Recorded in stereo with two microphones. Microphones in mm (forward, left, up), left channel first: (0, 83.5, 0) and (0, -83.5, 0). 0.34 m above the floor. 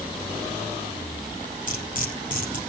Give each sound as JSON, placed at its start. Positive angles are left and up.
{"t": 1.7, "sound": "cutlery clinking", "side_deg": 50, "distance_m": 6.0}